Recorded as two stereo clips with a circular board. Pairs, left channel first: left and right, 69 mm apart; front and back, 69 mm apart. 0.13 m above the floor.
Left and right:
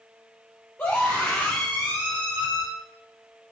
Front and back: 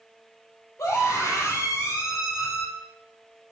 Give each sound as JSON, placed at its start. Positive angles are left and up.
{"t": 0.8, "sound": "a scream", "azimuth_deg": 40, "distance_m": 4.0}